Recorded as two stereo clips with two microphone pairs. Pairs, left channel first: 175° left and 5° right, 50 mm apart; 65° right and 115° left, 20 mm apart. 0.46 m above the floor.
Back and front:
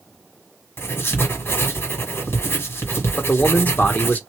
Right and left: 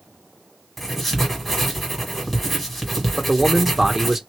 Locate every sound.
0.8 s writing: 150° right, 1.5 m
3.2 s a man speaking: straight behind, 0.8 m